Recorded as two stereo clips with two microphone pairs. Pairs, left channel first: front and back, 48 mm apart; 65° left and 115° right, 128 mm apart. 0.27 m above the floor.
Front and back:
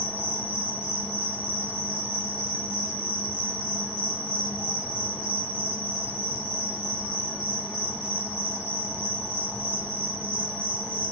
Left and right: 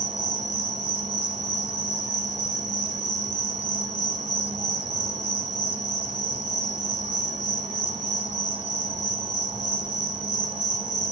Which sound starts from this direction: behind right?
An insect, at 0.0 s.